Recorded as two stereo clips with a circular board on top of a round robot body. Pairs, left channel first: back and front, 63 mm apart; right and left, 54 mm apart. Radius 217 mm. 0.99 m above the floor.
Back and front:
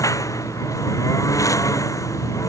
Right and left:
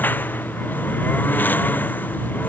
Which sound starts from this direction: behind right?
A lawn mower, at 0.0 s.